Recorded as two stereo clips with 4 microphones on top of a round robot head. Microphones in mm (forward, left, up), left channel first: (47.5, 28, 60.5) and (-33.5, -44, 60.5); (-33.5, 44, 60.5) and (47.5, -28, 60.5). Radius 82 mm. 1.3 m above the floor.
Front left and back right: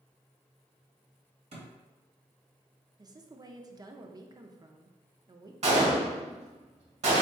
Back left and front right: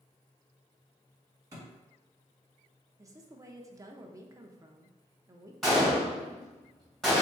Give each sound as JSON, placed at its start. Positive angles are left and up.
{"t": 1.5, "sound": "a thud", "azimuth_deg": -110, "distance_m": 1.4}
{"t": 3.0, "sound": "a woman speaking", "azimuth_deg": -95, "distance_m": 0.6}
{"t": 5.6, "sound": "a gunshot", "azimuth_deg": -135, "distance_m": 1.6}